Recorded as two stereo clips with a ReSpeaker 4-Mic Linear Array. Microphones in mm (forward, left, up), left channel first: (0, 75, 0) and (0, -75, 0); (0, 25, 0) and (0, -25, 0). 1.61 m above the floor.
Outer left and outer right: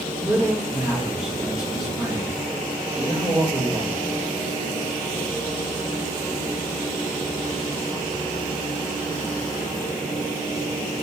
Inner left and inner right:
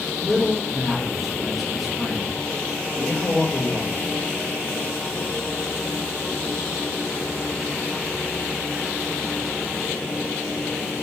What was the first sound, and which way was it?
A man speaking, 5° right (ahead or behind).